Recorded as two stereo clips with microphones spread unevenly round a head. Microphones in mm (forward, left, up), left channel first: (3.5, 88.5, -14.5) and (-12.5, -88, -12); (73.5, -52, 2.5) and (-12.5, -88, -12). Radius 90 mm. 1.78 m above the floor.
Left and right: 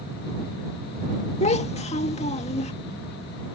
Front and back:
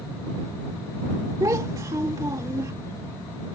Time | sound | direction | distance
1.4 | a child speaking | 135° left | ?